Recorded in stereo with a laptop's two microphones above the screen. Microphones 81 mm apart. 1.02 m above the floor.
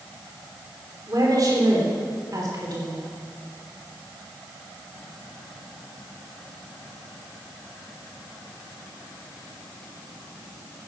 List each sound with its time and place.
1.1 s a woman speaking: 50° right (ahead or behind), 3 m